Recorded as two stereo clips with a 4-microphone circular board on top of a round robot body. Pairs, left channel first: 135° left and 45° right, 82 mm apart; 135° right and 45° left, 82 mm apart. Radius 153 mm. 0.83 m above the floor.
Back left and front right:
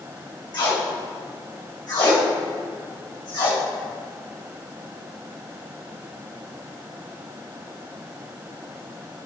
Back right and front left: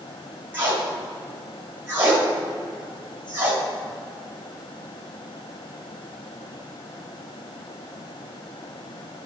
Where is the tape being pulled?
105° left, 2.5 m.